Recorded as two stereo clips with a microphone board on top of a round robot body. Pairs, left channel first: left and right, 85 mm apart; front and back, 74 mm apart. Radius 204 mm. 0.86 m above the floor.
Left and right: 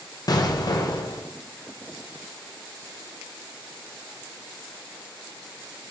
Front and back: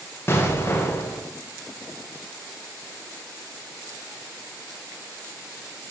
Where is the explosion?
55° left, 1.0 m.